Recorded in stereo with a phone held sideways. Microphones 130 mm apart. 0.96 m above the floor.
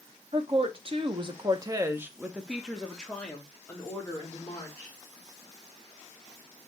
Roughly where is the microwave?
No microwave in this recording.